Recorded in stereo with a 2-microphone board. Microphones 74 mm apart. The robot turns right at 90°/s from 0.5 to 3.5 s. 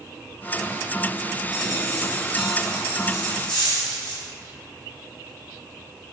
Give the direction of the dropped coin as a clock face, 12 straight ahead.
3 o'clock.